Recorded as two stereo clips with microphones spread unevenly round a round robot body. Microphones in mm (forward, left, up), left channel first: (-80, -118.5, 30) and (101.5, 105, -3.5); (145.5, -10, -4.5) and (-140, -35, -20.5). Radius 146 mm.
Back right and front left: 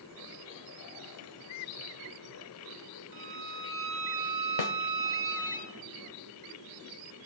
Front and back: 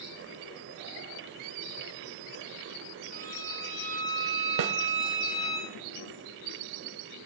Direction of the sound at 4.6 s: 145° right.